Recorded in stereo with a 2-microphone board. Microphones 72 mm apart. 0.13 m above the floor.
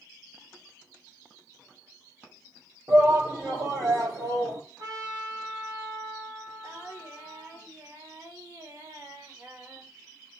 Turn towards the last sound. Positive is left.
turn(degrees=-50)  # may be behind; listen again after turning